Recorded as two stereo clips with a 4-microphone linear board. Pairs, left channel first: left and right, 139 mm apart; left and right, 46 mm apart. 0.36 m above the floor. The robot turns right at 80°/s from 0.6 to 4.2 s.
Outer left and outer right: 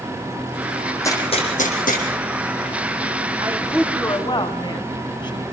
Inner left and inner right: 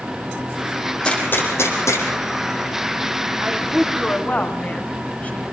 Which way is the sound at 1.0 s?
15° left (ahead or behind).